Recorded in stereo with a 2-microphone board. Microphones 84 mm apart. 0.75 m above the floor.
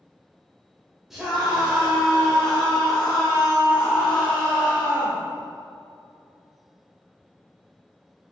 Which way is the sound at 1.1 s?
5° right (ahead or behind).